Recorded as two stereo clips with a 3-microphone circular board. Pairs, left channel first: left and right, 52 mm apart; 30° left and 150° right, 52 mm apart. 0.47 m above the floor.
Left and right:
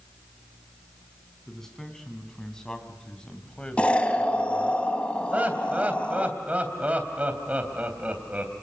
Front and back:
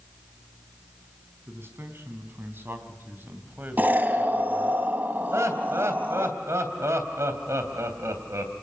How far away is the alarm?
No alarm in this recording.